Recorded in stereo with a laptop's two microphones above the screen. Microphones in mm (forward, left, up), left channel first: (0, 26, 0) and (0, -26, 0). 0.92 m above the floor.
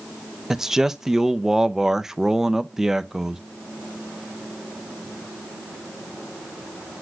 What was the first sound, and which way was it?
A man speaking, 10° right (ahead or behind).